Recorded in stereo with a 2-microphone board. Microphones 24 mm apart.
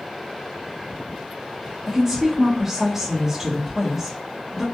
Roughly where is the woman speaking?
Centre.